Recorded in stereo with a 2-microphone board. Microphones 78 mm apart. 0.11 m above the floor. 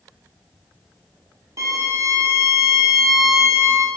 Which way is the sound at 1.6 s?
40° right (ahead or behind).